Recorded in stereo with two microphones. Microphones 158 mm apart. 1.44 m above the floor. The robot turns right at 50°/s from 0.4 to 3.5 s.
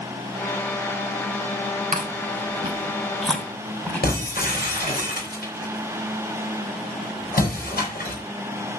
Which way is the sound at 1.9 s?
60° right (ahead or behind).